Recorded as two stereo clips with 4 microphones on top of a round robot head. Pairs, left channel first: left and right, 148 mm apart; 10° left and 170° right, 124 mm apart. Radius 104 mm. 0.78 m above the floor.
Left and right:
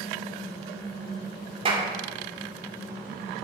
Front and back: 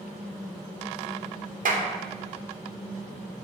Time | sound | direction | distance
1.6 | a clap | 150° right | 1.7 m